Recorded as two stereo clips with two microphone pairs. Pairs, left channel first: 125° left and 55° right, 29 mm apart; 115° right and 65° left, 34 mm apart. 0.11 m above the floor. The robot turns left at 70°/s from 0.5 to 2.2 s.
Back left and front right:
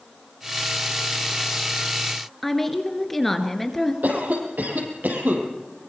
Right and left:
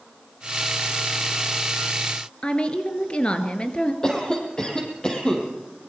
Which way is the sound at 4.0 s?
50° right.